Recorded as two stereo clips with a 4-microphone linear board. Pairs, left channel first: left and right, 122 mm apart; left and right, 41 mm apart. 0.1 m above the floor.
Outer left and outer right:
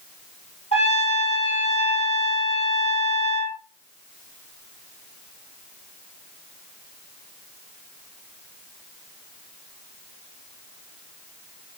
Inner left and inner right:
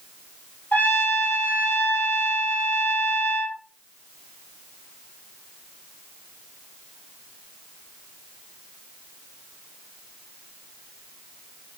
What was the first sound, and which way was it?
A trumpet, 55° left (ahead or behind).